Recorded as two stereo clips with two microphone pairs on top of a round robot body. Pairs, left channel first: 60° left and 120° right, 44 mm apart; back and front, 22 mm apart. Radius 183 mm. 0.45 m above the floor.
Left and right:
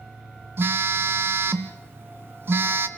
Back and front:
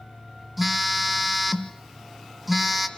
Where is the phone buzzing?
85° right, 1.0 m.